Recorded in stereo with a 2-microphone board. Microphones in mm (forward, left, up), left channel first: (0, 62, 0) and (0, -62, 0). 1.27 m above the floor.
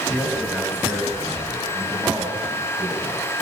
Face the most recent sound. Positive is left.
turn(degrees=-15)  # may be behind; listen again after turning